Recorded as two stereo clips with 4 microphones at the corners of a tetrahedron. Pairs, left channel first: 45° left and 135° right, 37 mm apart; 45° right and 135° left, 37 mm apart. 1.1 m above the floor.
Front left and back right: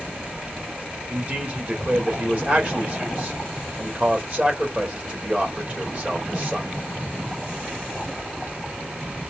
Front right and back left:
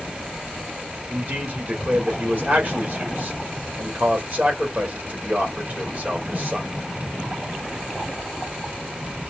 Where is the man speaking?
Straight behind, 1.7 m.